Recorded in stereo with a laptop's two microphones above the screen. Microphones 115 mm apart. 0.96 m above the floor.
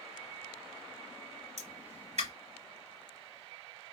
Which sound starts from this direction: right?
A pop, at 1.6 s.